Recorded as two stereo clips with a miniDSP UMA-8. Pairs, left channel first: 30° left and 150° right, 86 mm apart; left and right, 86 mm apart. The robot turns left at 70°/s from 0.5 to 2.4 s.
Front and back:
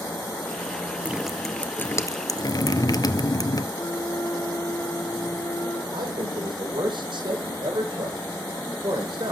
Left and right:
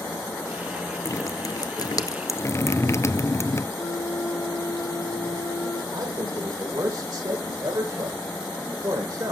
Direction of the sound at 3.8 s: 65° left.